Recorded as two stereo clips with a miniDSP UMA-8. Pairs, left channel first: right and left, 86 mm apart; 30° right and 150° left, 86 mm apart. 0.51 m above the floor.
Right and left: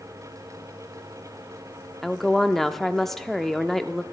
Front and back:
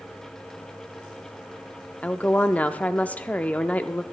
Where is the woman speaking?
15° right, 0.7 m.